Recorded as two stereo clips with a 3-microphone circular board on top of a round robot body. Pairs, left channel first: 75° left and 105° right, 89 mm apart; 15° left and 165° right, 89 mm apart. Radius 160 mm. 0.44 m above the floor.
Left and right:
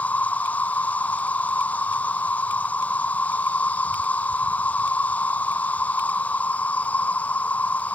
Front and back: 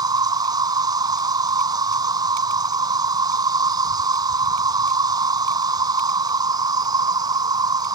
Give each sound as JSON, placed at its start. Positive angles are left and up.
{"t": 0.0, "sound": "an insect", "azimuth_deg": 150}